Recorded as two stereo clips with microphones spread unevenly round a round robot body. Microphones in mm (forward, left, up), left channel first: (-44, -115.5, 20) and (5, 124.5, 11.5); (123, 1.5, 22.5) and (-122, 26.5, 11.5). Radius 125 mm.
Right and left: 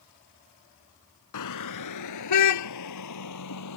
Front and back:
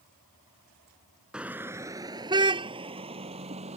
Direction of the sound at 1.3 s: 100° right.